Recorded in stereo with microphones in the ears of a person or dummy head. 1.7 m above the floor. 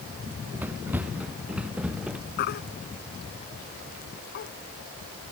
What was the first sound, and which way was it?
Running footsteps, 10° right (ahead or behind).